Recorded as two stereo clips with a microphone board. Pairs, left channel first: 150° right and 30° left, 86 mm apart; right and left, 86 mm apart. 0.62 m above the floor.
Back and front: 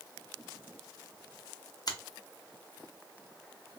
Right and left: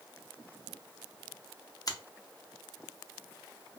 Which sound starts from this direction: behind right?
A finger snap, at 1.9 s.